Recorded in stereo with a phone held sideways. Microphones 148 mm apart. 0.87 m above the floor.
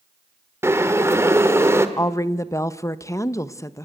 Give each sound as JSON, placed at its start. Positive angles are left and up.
{"t": 0.6, "sound": "boiling", "side_deg": -15, "distance_m": 1.5}
{"t": 2.0, "sound": "a woman speaking", "side_deg": 20, "distance_m": 0.8}